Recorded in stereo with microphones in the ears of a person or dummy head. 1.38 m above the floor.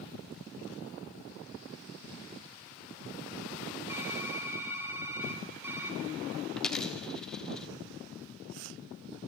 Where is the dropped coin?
10° left (ahead or behind), 1.2 m.